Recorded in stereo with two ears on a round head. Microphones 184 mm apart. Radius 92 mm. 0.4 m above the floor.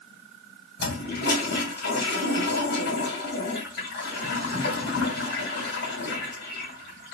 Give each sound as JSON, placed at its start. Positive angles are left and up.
{"t": 0.8, "sound": "a toilet flushing", "side_deg": 60, "distance_m": 2.5}